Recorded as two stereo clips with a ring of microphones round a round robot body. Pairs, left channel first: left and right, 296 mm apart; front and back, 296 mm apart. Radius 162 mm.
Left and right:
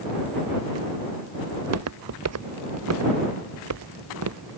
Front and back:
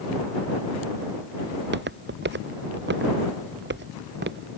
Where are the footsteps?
125° right.